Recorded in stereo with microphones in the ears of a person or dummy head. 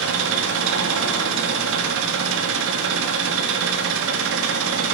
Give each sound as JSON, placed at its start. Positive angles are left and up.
{"t": 0.0, "sound": "an engine running", "side_deg": -80, "distance_m": 1.6}